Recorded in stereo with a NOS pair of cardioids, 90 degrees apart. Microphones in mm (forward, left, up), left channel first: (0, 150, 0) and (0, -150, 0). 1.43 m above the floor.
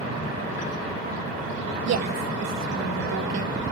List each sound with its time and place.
1.9 s a woman speaking: 60° right, 2.5 m